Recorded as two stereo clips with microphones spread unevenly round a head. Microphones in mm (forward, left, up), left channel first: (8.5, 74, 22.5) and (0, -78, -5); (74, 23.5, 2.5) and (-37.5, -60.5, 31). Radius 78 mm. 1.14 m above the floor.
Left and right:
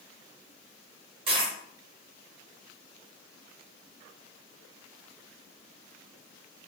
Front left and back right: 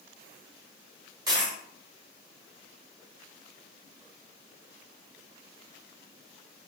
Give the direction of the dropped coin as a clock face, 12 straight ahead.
5 o'clock.